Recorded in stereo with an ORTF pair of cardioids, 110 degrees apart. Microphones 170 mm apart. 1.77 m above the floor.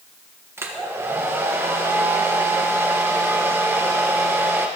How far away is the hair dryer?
About 1.6 m.